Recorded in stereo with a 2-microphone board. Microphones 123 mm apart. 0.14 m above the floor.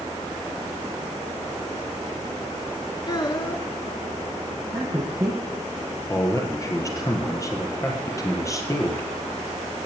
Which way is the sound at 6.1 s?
25° left (ahead or behind).